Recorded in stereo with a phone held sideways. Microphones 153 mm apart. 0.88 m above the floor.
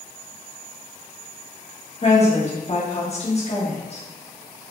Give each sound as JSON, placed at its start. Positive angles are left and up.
{"t": 2.0, "sound": "a woman speaking", "side_deg": 45, "distance_m": 1.4}